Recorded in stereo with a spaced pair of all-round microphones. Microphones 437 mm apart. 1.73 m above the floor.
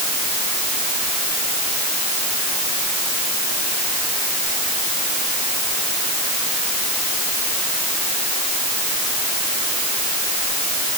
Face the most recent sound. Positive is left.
No sound to turn to.